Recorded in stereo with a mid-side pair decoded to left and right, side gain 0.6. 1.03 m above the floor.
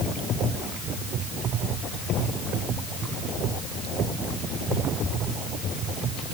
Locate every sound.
Only background noise.